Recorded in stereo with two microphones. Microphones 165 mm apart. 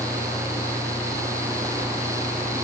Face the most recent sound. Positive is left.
No sound to turn to.